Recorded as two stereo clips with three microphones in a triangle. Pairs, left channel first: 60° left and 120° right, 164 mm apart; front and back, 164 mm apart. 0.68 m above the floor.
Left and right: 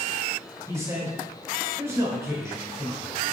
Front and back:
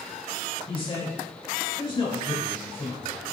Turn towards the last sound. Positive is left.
turn(degrees=-50)